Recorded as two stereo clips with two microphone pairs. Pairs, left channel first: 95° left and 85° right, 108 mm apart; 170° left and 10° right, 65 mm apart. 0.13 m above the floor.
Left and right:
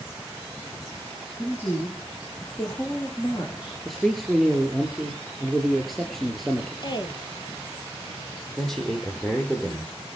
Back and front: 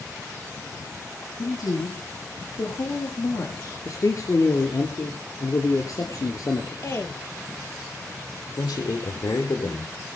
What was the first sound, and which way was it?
A woman speaking, 165° left.